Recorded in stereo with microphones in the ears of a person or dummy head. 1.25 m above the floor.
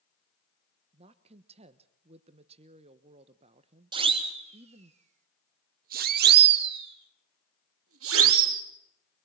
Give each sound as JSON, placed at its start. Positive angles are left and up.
{"t": 0.9, "sound": "a woman speaking", "side_deg": -30, "distance_m": 1.1}
{"t": 3.9, "sound": "a siren", "side_deg": -25, "distance_m": 3.5}